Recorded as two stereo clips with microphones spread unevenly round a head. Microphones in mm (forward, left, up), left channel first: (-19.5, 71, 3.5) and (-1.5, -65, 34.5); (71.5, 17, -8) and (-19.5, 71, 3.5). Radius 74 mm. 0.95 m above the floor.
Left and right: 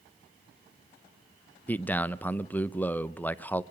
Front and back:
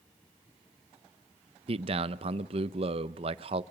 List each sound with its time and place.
1.7 s a man speaking: 160° left, 0.6 m